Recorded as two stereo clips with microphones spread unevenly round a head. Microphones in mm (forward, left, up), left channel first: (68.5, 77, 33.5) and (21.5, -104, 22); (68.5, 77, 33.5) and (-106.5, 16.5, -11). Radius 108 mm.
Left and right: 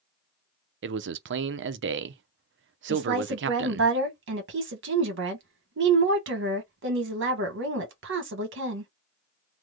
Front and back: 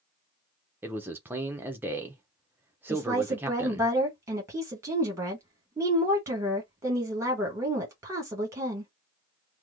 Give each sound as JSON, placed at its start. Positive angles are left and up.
{"t": 0.8, "sound": "a man speaking", "azimuth_deg": -80, "distance_m": 0.6}
{"t": 2.9, "sound": "a woman speaking", "azimuth_deg": -80, "distance_m": 1.4}